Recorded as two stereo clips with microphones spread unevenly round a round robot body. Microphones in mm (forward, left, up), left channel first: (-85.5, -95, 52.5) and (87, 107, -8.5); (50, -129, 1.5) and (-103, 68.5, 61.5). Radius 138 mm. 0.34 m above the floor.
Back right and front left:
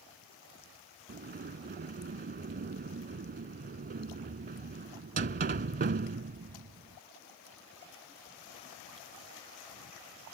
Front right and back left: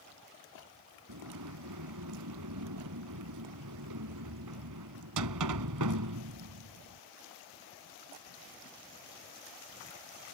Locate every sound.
1.1 s a sliding door: 105° left